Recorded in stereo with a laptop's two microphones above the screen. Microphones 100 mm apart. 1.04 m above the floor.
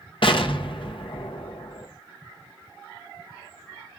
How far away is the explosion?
About 1.0 m.